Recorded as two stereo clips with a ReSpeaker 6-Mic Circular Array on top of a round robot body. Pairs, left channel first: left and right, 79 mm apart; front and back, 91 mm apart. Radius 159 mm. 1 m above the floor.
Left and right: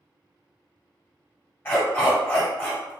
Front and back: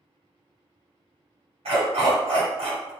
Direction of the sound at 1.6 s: 155° left.